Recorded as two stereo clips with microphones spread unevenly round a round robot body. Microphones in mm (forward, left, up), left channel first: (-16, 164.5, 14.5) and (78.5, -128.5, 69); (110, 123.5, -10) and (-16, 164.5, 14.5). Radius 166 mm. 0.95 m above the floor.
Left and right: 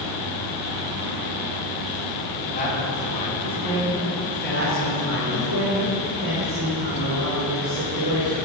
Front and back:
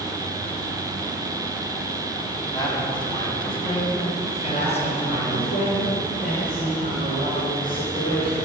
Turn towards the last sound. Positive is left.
turn(degrees=-25)